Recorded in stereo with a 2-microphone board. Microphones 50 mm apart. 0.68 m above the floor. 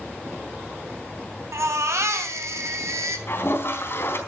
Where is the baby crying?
85° right, 3 m.